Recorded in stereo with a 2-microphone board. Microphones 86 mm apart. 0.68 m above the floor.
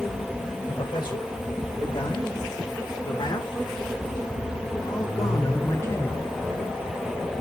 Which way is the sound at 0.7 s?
65° left (ahead or behind).